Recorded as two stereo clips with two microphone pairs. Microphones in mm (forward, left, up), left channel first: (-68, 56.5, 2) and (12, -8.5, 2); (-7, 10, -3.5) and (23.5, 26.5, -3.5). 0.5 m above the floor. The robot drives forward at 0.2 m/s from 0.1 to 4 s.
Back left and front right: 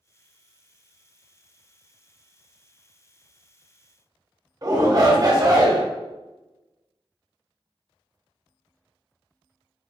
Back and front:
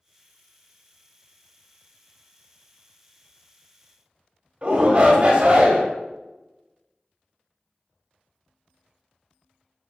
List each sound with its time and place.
4.6 s a shout: 15° right, 0.9 m